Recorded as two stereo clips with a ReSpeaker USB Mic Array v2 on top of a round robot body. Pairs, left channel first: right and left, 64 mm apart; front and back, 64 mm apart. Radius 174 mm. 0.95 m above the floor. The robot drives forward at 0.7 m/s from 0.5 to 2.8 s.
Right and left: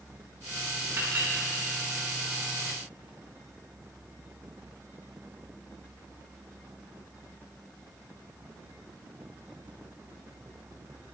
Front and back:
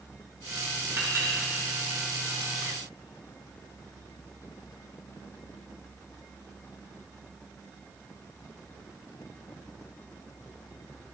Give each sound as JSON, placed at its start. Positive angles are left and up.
{"t": 1.0, "sound": "a clink", "azimuth_deg": 135, "distance_m": 3.0}